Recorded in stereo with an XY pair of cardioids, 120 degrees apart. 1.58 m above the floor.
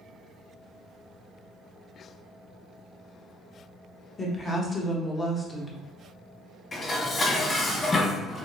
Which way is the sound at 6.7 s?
30° left.